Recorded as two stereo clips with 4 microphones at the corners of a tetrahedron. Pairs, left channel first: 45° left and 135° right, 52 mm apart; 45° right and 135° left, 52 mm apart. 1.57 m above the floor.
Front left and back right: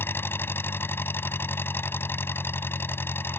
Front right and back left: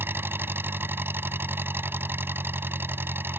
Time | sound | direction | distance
0.0 | an engine running | 90° left | ?